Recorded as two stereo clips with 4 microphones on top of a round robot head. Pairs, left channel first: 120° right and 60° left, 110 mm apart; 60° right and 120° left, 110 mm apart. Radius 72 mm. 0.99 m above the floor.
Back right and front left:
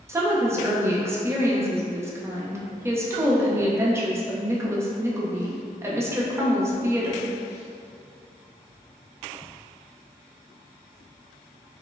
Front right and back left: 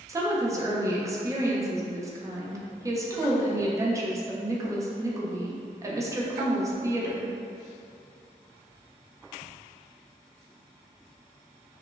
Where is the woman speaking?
95° left, 0.7 m.